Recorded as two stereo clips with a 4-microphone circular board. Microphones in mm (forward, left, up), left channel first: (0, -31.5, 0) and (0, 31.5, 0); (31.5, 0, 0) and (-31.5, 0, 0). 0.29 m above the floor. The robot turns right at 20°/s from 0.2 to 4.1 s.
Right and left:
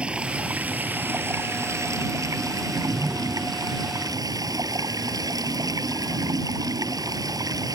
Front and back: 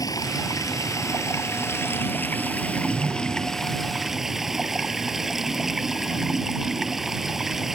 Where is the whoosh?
175° right; by 3.6 s 155° right.